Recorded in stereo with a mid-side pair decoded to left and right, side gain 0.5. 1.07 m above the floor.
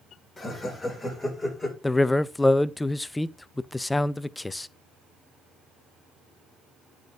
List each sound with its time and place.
0.4 s laughter: 20° left, 4.5 m; by 1.7 s 10° left, 5 m
1.8 s a man speaking: 15° left, 0.5 m